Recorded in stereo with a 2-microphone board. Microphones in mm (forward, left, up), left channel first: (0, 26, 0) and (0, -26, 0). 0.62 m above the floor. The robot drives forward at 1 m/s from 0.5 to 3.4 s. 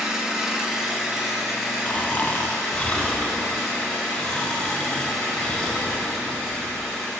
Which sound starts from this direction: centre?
An engine running, at 0.0 s.